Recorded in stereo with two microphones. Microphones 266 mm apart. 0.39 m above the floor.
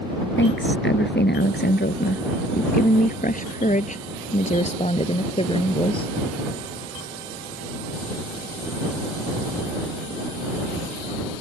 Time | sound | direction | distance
0.4 | a woman speaking | 45° left (ahead or behind) | ?